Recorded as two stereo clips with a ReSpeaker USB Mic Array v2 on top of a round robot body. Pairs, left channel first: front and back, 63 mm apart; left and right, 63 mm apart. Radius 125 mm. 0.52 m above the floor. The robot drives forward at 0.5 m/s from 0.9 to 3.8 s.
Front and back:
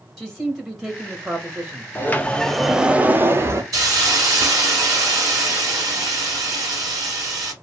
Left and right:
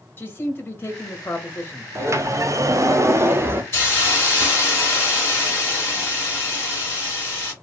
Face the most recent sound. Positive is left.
turn(degrees=150)